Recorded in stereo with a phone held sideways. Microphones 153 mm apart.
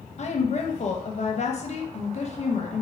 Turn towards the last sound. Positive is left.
turn(degrees=50)  # may be behind; listen again after turning